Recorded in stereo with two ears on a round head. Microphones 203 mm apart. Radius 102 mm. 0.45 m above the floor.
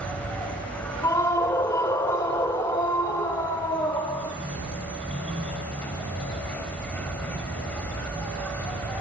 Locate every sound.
0.0 s an insect: 5° left (ahead or behind), 2.5 m
1.0 s a scream: 15° left (ahead or behind), 1.3 m